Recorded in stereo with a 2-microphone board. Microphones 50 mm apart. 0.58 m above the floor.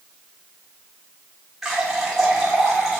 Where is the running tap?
5° right (ahead or behind), 1.4 m.